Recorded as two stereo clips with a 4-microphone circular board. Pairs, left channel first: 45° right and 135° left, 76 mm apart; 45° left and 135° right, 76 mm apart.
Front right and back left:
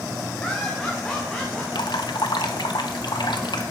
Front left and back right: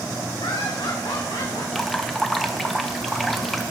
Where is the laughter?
30° left, 1.8 m; by 1.6 s 35° left, 2.5 m.